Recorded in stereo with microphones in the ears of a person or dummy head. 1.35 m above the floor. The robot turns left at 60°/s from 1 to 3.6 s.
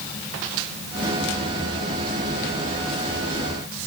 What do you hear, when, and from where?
Only background noise.